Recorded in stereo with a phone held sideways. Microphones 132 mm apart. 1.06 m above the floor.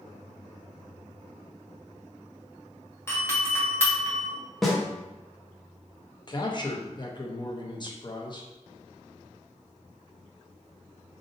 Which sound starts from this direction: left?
A man speaking, at 6.3 s.